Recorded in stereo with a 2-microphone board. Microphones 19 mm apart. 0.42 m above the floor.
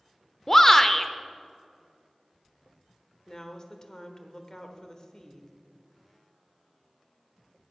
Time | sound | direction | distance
0.5 | a shout | 15° left (ahead or behind) | 0.8 m
3.3 | a woman speaking | 35° left (ahead or behind) | 1.2 m